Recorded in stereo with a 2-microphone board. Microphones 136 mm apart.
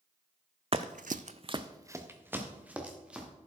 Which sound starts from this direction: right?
Running footsteps, at 0.7 s.